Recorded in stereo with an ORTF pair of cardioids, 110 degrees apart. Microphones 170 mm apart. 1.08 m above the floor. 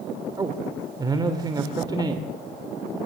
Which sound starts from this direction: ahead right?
A man speaking, at 0.4 s.